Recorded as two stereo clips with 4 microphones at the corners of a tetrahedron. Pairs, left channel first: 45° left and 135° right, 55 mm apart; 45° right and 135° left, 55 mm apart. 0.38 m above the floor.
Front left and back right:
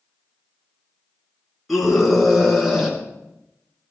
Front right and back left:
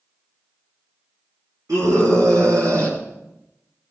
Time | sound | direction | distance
1.7 | a scream | 135° left | 6 m